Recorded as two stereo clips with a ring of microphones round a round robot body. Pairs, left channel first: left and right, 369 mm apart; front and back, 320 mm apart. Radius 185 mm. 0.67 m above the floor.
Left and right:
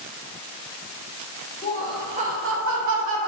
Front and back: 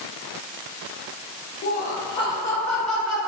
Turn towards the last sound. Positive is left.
turn(degrees=-95)